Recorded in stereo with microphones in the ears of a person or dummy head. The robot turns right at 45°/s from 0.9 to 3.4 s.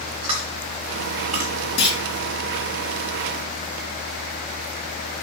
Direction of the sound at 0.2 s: 25° right (ahead or behind).